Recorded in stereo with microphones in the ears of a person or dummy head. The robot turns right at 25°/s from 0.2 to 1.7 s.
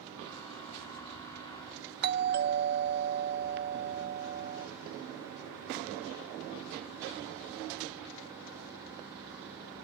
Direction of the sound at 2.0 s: 50° right (ahead or behind).